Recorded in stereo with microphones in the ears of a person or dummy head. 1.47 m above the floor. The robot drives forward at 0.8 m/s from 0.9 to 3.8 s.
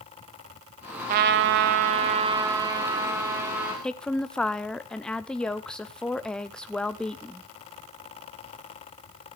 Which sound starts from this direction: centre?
A woman speaking, at 3.8 s.